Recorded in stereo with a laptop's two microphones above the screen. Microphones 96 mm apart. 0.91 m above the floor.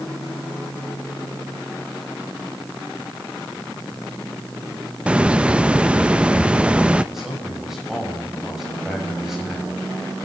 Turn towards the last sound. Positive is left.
turn(degrees=-5)  # may be behind; listen again after turning